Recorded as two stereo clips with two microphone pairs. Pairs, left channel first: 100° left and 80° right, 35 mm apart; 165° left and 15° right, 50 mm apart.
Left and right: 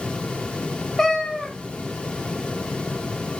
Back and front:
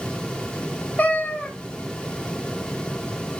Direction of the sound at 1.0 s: 165° left.